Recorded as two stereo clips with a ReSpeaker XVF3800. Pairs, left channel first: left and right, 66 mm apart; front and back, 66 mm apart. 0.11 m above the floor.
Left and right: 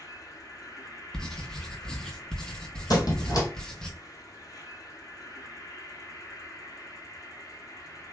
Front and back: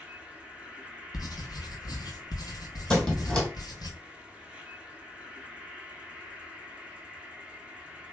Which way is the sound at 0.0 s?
105° left.